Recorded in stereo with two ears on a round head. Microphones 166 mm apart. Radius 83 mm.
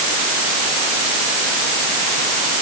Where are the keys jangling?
I don't hear keys jangling.